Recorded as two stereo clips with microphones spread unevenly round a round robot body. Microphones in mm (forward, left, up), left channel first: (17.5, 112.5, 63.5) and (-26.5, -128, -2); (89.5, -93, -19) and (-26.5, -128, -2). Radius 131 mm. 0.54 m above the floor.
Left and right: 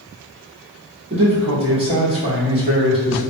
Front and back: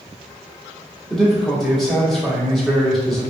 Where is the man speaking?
65° right, 1.6 m.